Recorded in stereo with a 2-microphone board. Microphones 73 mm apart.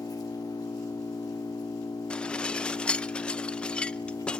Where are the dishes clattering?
15° left (ahead or behind), 0.6 m.